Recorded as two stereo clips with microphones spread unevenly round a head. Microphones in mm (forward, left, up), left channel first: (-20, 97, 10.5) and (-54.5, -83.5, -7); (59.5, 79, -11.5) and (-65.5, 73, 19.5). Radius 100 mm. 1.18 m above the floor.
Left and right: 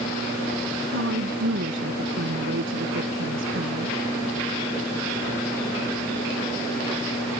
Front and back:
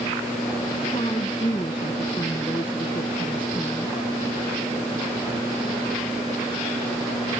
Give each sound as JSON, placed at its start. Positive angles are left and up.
{"t": 0.9, "sound": "a woman speaking", "azimuth_deg": -65}